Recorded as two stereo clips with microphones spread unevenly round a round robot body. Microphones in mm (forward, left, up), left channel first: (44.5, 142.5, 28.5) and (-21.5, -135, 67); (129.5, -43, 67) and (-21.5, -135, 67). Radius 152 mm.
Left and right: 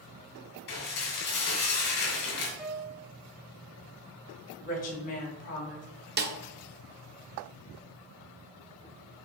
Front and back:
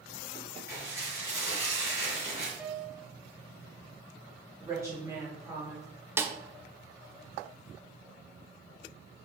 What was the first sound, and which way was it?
Dishes clattering, 130° left.